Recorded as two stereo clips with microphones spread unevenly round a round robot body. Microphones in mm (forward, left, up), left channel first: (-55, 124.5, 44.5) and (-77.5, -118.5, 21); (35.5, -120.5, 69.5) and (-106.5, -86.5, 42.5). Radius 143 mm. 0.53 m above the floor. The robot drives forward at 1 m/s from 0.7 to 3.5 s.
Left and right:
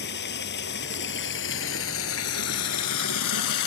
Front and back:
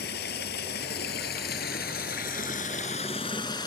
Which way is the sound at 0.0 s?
30° left.